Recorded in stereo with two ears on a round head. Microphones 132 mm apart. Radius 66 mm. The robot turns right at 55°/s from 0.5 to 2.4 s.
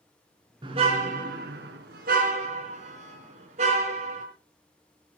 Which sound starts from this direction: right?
A car horn, at 0.6 s.